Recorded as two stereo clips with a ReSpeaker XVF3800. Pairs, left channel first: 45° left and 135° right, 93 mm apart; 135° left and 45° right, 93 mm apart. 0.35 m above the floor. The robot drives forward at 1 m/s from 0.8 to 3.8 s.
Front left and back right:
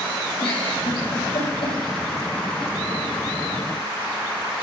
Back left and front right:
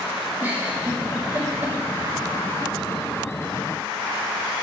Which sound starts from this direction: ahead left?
A giggle, at 0.4 s.